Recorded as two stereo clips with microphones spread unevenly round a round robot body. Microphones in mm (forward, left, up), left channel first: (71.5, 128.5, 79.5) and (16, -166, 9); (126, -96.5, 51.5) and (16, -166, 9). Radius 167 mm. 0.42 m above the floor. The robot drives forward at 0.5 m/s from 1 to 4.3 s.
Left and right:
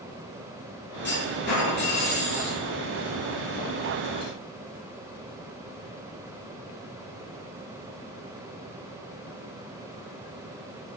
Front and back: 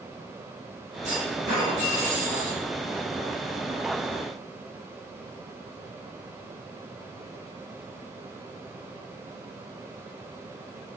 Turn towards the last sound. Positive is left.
turn(degrees=170)